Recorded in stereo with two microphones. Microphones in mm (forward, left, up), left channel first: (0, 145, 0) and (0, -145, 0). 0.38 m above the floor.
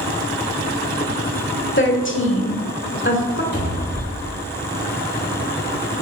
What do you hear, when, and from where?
1.8 s a woman speaking: 40° left (ahead or behind), 1.4 m
3.5 s a cupboard door: 35° left (ahead or behind), 2.5 m